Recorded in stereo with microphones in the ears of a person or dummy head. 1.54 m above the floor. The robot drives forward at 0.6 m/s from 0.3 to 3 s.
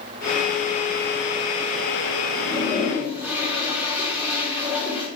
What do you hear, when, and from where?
2.3 s a toilet flushing: 10° right (ahead or behind), 5.5 m